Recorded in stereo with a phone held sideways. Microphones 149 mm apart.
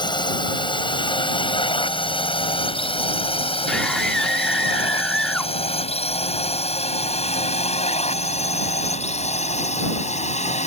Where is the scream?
5° left (ahead or behind).